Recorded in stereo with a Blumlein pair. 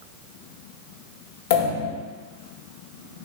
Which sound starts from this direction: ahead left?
A pop, at 1.5 s.